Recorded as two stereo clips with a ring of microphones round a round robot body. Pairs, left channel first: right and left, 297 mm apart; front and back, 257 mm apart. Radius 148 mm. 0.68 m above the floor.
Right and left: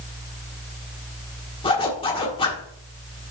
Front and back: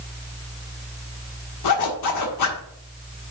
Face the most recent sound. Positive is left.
turn(degrees=-15)